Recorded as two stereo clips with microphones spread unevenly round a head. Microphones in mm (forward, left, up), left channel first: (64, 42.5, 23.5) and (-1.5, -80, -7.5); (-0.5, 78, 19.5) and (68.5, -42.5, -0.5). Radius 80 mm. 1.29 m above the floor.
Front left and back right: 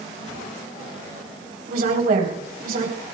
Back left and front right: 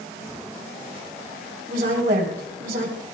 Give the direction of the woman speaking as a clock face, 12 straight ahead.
3 o'clock.